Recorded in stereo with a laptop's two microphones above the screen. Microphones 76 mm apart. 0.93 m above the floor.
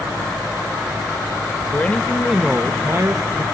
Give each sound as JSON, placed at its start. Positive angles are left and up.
{"t": 1.7, "sound": "a man speaking", "side_deg": 30, "distance_m": 0.8}